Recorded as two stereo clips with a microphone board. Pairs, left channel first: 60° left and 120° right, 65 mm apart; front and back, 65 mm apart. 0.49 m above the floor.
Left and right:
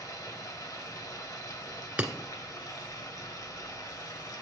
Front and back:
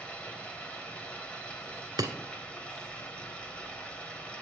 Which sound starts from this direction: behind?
Breaking glass, at 2.0 s.